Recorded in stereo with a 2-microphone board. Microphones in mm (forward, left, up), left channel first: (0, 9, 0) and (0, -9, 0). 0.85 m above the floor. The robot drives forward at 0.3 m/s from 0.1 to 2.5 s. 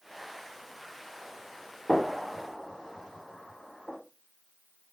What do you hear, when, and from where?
1.9 s a gunshot: 40° left (ahead or behind), 2.5 m